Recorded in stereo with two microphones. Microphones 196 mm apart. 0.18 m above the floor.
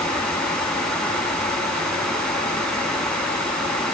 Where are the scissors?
No scissors in this recording.